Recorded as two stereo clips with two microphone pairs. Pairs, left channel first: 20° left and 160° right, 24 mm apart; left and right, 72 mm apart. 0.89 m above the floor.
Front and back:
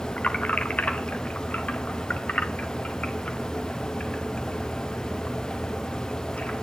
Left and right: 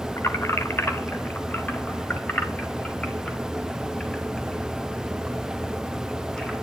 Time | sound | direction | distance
0.2 | keys jangling | 40° left | 2.5 m